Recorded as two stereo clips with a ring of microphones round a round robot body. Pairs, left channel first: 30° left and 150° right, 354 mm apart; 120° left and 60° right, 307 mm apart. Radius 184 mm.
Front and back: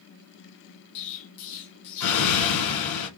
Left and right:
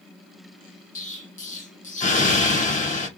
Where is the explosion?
55° left, 1.6 m.